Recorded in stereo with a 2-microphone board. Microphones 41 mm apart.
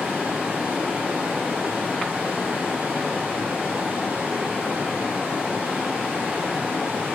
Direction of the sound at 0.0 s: 20° right (ahead or behind).